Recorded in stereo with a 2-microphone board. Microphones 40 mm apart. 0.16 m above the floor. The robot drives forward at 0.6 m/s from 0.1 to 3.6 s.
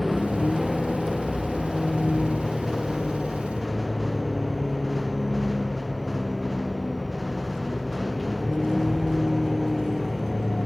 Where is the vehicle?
Centre (ahead or behind).